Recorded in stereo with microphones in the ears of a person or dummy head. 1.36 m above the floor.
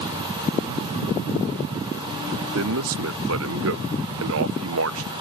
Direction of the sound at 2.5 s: 70° right (ahead or behind).